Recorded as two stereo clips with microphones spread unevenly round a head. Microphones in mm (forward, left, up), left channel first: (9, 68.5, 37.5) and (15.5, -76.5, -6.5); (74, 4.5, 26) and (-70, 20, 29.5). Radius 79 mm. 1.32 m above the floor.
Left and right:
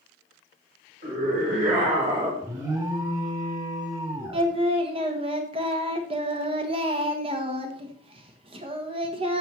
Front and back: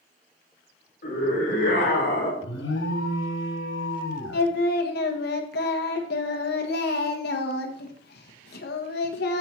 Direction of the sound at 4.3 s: 30° right.